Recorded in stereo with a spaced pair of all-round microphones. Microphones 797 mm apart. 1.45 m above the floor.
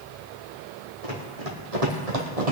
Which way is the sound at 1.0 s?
45° right (ahead or behind).